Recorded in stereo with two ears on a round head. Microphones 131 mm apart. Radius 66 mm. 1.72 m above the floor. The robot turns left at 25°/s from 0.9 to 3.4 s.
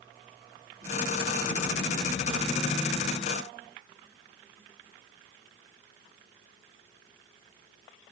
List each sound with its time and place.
Only background noise.